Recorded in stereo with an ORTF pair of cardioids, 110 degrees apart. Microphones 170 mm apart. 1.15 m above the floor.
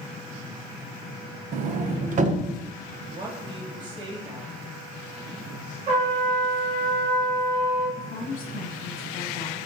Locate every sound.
1.5 s a sliding door: 50° right, 0.7 m
3.1 s a woman speaking: 25° right, 2.5 m
5.9 s a trumpet: 45° right, 3 m
8.0 s a woman speaking: 40° left, 1.5 m